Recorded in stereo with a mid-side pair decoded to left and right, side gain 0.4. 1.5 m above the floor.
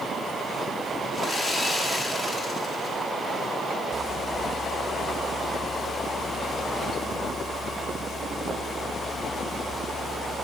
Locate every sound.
1.1 s sawing: 40° left, 1.9 m